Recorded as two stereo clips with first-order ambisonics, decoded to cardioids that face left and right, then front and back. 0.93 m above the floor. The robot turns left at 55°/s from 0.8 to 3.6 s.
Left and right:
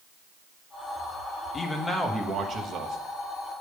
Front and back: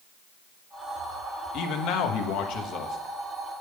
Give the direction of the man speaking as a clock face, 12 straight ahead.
11 o'clock.